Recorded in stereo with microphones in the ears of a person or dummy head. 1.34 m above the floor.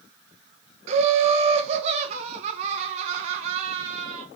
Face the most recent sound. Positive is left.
turn(degrees=-30)  # may be behind; listen again after turning